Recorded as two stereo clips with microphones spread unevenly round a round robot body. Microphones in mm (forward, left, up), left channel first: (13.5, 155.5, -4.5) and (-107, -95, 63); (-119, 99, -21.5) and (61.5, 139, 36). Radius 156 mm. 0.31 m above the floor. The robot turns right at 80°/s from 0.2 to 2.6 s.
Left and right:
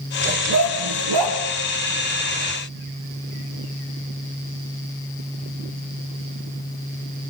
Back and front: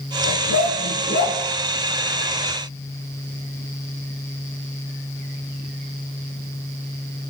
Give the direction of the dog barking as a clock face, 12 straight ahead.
6 o'clock.